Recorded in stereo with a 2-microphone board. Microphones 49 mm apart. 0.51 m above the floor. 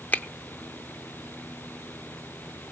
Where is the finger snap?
30° left (ahead or behind), 0.7 m.